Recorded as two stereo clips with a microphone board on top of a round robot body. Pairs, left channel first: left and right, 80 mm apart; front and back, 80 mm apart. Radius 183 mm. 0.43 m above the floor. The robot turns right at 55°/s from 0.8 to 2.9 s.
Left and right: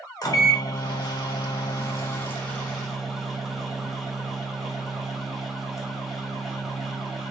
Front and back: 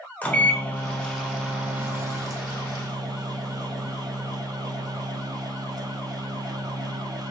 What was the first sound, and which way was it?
A microwave, 65° left.